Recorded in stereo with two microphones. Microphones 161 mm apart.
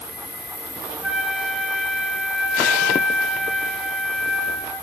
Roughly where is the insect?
Right.